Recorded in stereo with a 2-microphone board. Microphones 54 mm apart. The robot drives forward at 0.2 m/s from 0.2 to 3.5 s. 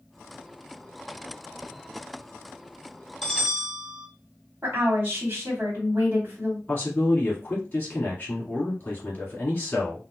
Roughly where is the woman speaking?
Right.